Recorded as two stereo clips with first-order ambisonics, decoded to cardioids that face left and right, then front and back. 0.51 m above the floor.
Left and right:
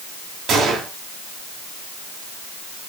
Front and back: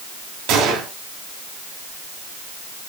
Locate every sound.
0.5 s a gunshot: 160° right, 2.5 m